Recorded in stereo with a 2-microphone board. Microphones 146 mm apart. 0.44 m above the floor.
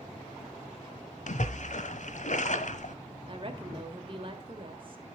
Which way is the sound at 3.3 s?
40° right (ahead or behind).